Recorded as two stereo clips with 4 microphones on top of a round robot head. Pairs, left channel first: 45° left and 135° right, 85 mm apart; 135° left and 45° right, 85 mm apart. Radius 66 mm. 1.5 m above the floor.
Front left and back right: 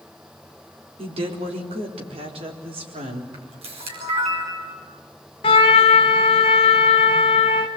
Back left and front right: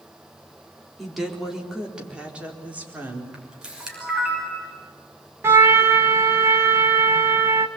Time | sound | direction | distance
1.0 | a woman speaking | 140° right | 4 m
3.3 | a camera shutter | 130° right | 6 m
5.4 | a trumpet | 15° left | 1.3 m